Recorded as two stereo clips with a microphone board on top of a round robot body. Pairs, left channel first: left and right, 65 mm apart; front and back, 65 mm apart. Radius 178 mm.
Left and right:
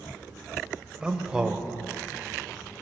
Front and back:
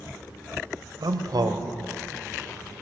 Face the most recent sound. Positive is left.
turn(degrees=-165)